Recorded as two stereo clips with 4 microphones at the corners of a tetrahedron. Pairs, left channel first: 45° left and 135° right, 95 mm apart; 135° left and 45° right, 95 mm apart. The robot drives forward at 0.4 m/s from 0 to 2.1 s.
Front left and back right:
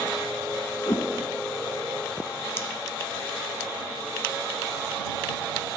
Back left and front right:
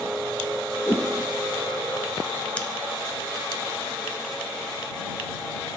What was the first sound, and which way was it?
A whoosh, 85° left.